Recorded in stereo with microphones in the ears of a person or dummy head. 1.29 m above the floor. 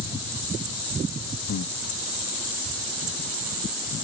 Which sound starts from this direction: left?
Breathing, at 1.5 s.